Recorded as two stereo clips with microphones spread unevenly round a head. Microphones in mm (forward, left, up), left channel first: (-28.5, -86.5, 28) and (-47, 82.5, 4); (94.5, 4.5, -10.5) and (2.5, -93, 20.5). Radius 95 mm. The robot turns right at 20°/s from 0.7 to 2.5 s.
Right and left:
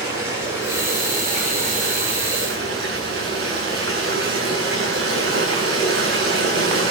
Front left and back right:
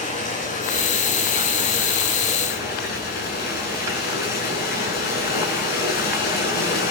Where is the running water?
15° left, 9 m; by 6.9 s 55° left, 9 m.